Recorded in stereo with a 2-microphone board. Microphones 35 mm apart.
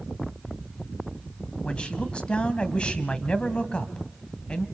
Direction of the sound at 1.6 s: 30° left (ahead or behind).